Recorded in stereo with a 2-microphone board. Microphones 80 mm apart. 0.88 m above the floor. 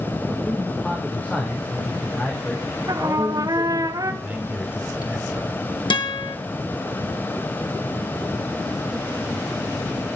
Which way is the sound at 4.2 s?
15° right (ahead or behind).